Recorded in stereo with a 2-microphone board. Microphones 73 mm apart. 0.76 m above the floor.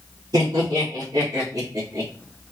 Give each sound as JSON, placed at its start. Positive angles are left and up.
{"t": 0.3, "sound": "laughter", "side_deg": -60, "distance_m": 2.0}